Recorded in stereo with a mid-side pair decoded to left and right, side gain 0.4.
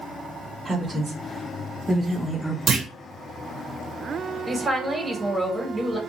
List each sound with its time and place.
0.7 s a woman speaking: 30° right, 1.8 m; by 2.6 s 5° right, 0.9 m
2.7 s a clunk: 50° right, 1.6 m
4.5 s a woman speaking: 25° right, 1.8 m